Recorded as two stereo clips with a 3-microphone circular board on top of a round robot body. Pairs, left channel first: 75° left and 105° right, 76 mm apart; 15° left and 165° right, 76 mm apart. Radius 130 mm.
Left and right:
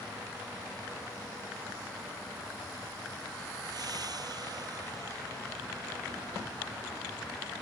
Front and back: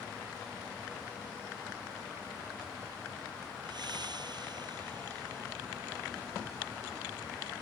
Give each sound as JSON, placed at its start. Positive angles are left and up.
{"t": 3.6, "sound": "breathing", "azimuth_deg": -140}